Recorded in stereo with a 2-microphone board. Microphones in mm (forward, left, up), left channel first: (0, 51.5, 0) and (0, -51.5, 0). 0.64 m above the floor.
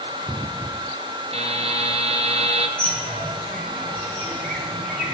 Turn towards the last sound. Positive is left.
turn(degrees=10)  # may be behind; listen again after turning